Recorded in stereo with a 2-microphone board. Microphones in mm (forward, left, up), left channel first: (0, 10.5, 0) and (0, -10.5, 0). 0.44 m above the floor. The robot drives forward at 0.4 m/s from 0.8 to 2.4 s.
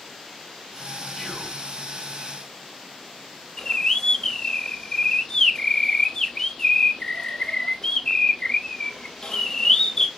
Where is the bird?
30° left (ahead or behind), 0.7 m.